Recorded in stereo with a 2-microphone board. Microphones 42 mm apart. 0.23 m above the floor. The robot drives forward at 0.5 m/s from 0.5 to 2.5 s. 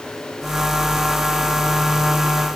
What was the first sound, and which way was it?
Only background noise.